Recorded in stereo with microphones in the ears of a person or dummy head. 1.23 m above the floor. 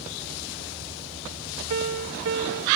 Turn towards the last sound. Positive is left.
turn(degrees=-60)  # may be behind; listen again after turning